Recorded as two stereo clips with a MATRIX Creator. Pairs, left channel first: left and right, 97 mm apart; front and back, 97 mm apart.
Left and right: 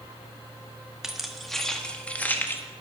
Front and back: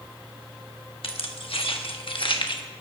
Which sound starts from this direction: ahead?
Keys jangling, at 1.0 s.